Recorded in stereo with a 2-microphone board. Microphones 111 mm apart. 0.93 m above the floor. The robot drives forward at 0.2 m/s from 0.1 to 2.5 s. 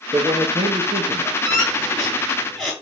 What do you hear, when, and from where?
0.1 s a man speaking: 45° right (ahead or behind), 1.3 m; by 1.4 s 40° right (ahead or behind), 1.3 m
1.4 s a squeak: centre (ahead or behind), 4.5 m